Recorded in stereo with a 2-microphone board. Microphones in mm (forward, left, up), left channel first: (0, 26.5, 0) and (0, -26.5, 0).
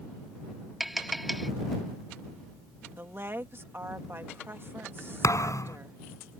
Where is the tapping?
5° right (ahead or behind).